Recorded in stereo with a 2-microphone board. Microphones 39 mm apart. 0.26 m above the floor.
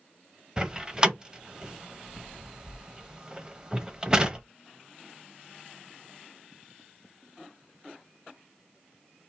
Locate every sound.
0.6 s a door slam: 20° right (ahead or behind), 0.7 m